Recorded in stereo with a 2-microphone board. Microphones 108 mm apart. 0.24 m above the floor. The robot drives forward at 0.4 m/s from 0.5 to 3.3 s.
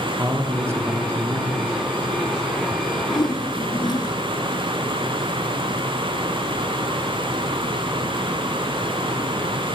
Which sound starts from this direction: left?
A whoosh, at 3.1 s.